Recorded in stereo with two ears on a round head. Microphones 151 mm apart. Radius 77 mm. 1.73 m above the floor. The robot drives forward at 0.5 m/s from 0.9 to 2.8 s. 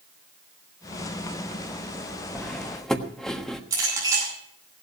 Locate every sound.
2.4 s cutlery clinking: 5° left (ahead or behind), 1.2 m
3.7 s a clink: 20° right (ahead or behind), 9.5 m